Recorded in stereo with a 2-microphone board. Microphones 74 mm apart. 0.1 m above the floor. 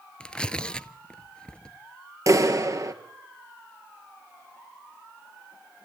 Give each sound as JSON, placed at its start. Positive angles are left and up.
{"t": 0.2, "sound": "tearing paper", "side_deg": 15, "distance_m": 0.5}
{"t": 2.3, "sound": "a clap", "side_deg": -45, "distance_m": 1.4}